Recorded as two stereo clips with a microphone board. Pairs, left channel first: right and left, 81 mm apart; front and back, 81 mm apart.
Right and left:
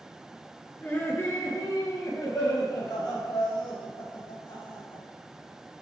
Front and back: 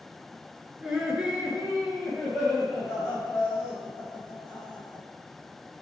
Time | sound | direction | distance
0.8 | laughter | 115° right | 1.8 m